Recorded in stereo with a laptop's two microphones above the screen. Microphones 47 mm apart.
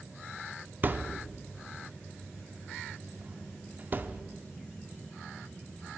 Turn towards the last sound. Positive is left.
turn(degrees=-35)  # may be behind; listen again after turning